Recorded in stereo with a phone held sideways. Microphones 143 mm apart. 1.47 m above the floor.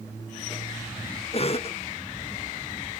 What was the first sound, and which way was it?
A cough, 45° left (ahead or behind).